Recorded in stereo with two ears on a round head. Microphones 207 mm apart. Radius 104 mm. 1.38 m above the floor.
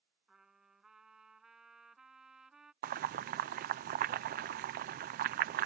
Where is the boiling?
40° right (ahead or behind).